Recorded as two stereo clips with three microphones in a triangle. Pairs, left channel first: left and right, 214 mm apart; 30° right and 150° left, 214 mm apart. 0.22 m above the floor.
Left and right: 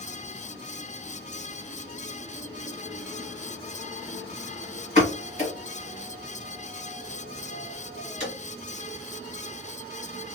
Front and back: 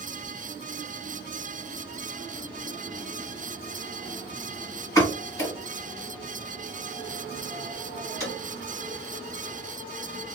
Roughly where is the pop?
Ahead left.